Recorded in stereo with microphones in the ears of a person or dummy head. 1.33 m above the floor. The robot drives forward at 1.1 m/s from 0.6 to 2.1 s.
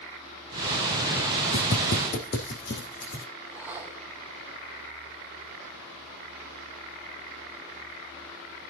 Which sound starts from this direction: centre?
A whoosh, at 3.5 s.